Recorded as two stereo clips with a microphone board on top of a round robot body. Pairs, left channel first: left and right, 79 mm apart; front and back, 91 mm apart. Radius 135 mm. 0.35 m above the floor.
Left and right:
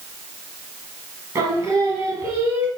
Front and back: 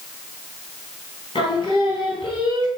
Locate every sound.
1.4 s singing: 35° right, 3.5 m